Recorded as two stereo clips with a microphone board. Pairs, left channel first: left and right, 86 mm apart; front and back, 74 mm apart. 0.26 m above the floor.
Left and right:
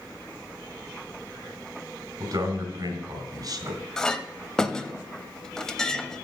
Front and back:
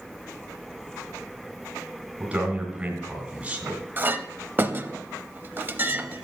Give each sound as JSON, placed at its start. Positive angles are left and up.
{"t": 2.2, "sound": "a man speaking", "azimuth_deg": -110, "distance_m": 3.0}
{"t": 4.0, "sound": "a clink", "azimuth_deg": 165, "distance_m": 0.6}